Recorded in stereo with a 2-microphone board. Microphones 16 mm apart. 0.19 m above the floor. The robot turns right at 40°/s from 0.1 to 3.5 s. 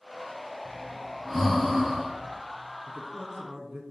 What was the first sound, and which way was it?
Breathing, 20° left (ahead or behind).